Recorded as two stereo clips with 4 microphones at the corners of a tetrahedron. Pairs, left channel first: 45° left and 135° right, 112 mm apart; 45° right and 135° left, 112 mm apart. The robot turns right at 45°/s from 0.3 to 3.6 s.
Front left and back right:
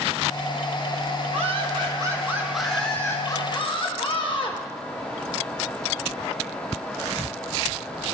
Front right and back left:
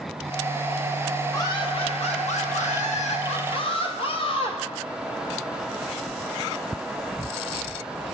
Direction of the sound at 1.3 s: 105° right.